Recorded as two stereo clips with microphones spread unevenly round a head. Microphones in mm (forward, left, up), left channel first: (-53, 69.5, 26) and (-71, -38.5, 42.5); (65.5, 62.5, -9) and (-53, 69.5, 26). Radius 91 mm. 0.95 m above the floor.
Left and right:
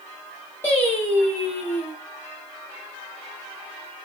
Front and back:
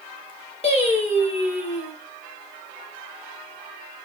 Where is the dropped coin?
I don't hear a dropped coin.